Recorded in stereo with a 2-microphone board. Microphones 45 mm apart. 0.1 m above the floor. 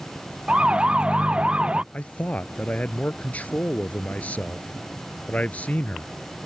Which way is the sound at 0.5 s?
25° right (ahead or behind).